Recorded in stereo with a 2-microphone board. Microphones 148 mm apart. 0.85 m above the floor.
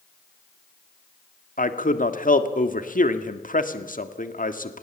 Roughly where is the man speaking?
Left.